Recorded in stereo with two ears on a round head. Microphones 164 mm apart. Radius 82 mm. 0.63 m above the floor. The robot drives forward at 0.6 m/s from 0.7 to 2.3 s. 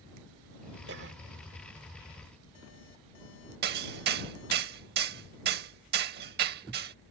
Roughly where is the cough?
Right.